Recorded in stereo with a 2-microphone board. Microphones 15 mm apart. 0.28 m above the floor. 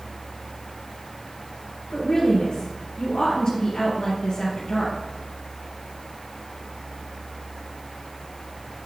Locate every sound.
1.9 s a woman speaking: 70° left (ahead or behind), 3.5 m